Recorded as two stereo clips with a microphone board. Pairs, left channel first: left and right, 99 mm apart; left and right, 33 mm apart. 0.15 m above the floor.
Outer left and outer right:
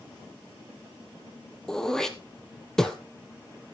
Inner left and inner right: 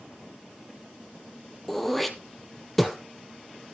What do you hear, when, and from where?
1.7 s throat clearing: 5° left (ahead or behind), 1.1 m